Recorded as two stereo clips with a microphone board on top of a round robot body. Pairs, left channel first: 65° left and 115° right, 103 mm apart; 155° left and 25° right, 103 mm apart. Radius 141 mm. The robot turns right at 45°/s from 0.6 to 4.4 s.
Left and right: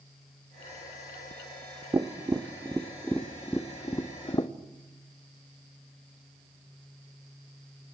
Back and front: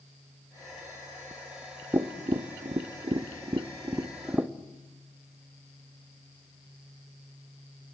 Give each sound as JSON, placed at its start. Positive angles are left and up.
{"t": 1.9, "sound": "tapping", "azimuth_deg": -65, "distance_m": 1.2}